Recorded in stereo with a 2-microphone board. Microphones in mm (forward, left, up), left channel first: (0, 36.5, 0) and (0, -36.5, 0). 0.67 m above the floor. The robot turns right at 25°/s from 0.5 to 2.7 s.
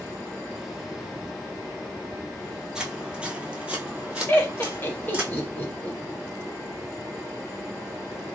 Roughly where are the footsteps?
Centre.